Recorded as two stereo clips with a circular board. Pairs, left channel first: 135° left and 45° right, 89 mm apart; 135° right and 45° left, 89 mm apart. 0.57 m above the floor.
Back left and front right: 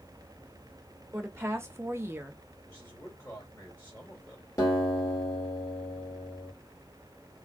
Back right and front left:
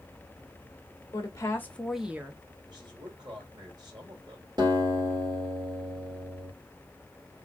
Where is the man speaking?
75° left, 2.5 m.